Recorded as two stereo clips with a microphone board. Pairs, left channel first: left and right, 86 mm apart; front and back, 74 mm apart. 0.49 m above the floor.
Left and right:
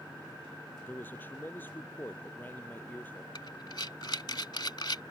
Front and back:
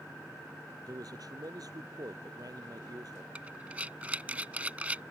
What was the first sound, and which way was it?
A man speaking, 155° left.